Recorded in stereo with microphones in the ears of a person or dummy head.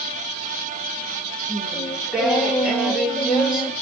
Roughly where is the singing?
Centre.